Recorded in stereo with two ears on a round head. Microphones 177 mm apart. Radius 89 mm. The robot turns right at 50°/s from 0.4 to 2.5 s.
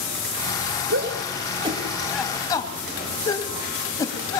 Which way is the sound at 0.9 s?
55° right (ahead or behind).